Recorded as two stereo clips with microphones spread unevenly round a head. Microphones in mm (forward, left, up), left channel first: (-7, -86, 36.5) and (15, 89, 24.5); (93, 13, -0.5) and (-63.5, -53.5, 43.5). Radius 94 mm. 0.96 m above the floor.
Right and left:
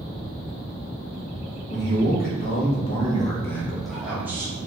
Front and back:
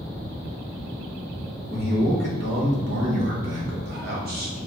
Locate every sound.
1.7 s a man speaking: 120° right, 1.2 m; by 4.7 s 155° left, 1.2 m